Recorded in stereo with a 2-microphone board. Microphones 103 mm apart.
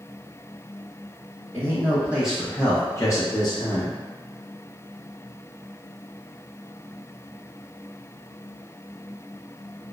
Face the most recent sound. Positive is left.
turn(degrees=55)  # may be behind; listen again after turning